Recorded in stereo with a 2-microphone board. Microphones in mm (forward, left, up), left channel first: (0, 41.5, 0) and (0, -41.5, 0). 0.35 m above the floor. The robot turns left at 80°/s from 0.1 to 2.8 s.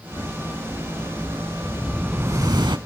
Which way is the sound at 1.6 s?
15° left.